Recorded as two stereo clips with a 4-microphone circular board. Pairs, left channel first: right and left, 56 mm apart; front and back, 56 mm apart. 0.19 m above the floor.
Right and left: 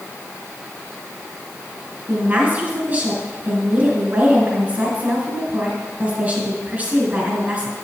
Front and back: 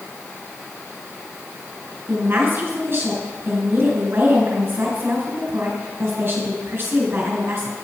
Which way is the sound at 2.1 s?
145° left.